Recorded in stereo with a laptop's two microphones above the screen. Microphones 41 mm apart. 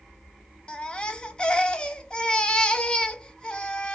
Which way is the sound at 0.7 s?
25° left (ahead or behind).